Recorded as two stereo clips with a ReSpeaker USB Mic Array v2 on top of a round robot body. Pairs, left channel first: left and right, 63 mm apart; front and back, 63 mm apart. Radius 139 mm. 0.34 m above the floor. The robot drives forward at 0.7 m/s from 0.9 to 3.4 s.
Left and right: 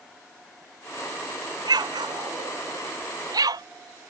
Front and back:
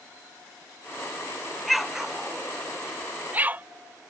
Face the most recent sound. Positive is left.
turn(degrees=-115)